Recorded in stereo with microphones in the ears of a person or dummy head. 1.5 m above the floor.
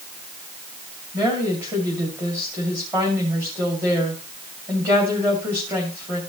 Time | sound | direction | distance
1.1 | a woman speaking | 20° right (ahead or behind) | 2.5 m